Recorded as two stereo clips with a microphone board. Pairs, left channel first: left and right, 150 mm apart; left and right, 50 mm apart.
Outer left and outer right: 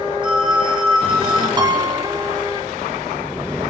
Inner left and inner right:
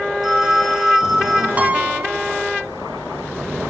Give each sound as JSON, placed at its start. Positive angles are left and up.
{"t": 0.2, "sound": "a phone ringing", "side_deg": -10, "distance_m": 6.0}
{"t": 1.6, "sound": "a piano", "side_deg": -30, "distance_m": 0.9}